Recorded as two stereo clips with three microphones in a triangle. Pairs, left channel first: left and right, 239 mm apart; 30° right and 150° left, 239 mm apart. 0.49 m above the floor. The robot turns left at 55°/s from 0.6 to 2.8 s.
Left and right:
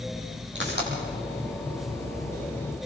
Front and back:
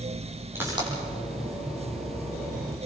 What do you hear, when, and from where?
0.6 s a pop: 130° right, 6.5 m; by 0.9 s 145° right, 6.5 m